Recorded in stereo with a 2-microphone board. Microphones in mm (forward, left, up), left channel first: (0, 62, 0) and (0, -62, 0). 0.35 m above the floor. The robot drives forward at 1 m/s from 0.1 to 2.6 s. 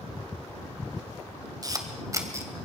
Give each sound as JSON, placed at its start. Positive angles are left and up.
{"t": 1.6, "sound": "a camera shutter", "side_deg": -30, "distance_m": 1.9}